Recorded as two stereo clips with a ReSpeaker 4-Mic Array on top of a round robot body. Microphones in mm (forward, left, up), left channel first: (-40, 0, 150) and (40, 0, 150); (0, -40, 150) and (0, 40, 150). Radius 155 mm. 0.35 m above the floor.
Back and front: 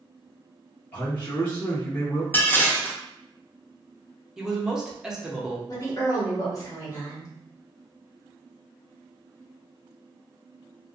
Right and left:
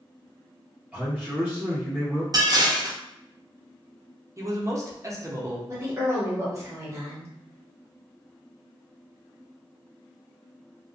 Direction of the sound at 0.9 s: 150° left.